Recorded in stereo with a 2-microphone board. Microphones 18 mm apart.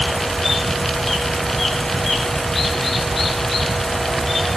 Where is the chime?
No chime in this recording.